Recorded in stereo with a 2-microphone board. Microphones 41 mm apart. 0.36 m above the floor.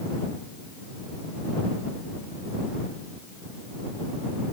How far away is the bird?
I don't hear a bird.